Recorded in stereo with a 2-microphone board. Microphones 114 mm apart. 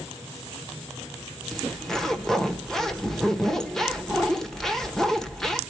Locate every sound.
1.5 s a zipper: 5° left (ahead or behind), 1.2 m